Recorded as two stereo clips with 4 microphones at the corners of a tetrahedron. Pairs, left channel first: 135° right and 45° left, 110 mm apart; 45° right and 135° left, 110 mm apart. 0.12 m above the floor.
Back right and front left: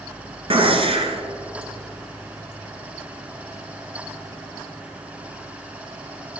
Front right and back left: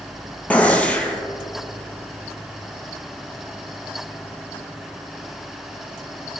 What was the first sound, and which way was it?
A gunshot, 30° left.